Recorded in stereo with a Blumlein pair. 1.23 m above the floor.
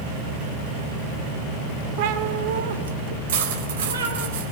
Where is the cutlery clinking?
60° right, 4 m.